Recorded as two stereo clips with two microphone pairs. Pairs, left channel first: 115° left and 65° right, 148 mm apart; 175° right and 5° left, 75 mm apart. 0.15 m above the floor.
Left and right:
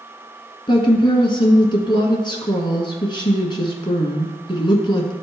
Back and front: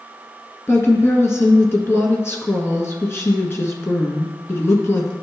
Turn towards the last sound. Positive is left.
turn(degrees=150)